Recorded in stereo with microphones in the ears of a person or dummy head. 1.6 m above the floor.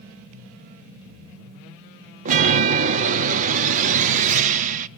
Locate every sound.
2.2 s a chime: 45° right (ahead or behind), 0.7 m